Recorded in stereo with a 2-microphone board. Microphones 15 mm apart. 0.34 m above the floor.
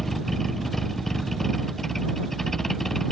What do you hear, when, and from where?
0.0 s a vehicle: 20° left (ahead or behind); by 3.1 s 25° left (ahead or behind)